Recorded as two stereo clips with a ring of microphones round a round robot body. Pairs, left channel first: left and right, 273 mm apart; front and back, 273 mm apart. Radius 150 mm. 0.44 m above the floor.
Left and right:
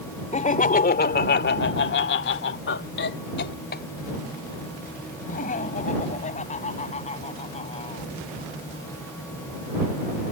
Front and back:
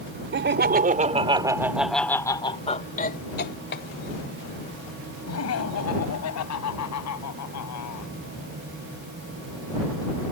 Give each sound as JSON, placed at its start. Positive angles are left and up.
{"t": 0.3, "sound": "laughter", "azimuth_deg": 145}